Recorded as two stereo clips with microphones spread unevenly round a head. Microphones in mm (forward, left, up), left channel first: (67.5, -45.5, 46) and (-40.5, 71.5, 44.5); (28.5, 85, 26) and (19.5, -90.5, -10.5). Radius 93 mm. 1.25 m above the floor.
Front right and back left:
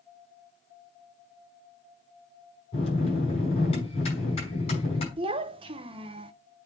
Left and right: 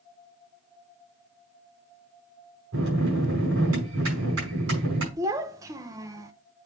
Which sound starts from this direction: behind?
A child speaking, at 5.2 s.